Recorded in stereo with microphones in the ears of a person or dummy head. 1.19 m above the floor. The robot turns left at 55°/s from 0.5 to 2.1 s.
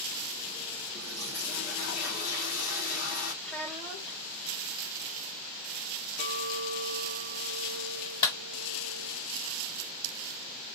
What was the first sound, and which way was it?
A toilet flushing, 165° left.